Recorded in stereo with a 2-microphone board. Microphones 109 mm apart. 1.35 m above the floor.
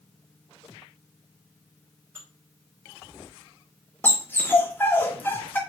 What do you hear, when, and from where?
2.1 s dishes clattering: 20° right (ahead or behind), 3 m
4.0 s a dog barking: 20° left (ahead or behind), 1.3 m